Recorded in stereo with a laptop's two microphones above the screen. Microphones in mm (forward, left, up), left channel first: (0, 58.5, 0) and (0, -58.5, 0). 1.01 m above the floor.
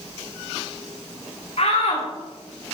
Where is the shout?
65° left (ahead or behind), 2.5 m.